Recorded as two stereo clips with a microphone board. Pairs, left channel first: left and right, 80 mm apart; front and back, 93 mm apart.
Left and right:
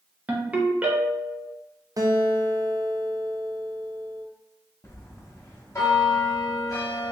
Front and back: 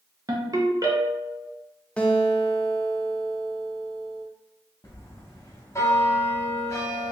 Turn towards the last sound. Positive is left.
turn(degrees=50)